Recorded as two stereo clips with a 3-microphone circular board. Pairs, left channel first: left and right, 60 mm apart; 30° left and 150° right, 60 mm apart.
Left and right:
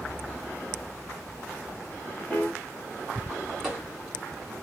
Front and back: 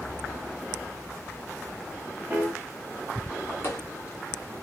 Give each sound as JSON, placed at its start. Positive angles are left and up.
{"t": 2.3, "sound": "a piano", "azimuth_deg": 155, "distance_m": 0.9}
{"t": 3.6, "sound": "footsteps", "azimuth_deg": -10, "distance_m": 1.2}